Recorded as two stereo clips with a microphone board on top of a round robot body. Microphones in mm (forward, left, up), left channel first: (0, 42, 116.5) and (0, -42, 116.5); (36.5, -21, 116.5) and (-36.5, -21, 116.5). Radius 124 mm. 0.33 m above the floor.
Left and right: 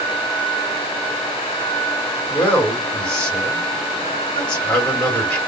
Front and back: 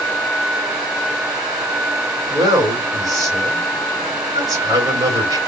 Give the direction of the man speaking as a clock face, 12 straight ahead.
7 o'clock.